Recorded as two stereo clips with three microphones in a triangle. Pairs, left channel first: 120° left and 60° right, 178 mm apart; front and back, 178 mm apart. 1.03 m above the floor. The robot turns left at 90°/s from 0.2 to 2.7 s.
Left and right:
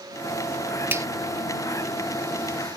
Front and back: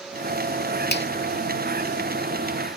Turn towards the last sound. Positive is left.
turn(degrees=-145)